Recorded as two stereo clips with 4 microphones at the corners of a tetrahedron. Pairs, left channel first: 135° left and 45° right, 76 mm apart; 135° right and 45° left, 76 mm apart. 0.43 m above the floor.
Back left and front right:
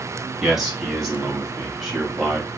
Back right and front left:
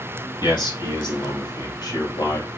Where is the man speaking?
135° right, 3.5 m.